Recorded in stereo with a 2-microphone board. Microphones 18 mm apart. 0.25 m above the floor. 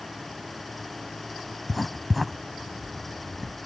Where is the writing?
5° right (ahead or behind).